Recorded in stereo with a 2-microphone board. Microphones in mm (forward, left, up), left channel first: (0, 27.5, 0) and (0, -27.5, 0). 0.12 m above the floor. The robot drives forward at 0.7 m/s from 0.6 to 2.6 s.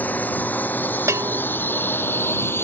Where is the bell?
60° right (ahead or behind).